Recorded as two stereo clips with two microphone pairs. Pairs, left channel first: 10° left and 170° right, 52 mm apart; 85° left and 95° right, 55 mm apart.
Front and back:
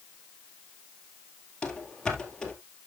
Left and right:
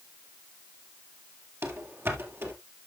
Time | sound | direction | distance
1.6 | running footsteps | 65° right | 2 m